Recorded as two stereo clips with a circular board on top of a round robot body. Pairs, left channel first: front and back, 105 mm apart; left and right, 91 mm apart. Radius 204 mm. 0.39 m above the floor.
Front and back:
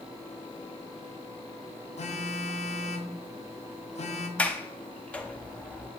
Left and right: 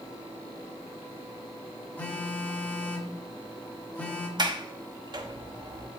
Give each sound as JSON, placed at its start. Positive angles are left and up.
{"t": 2.0, "sound": "a phone buzzing", "azimuth_deg": 15, "distance_m": 0.8}
{"t": 4.4, "sound": "a sliding door", "azimuth_deg": -75, "distance_m": 1.2}